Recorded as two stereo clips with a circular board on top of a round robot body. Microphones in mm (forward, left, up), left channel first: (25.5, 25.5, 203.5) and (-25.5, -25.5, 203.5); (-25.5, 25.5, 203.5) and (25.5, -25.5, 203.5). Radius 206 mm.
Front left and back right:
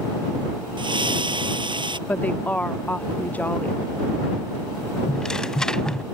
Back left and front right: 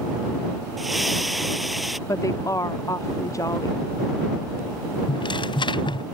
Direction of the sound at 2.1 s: 110° left.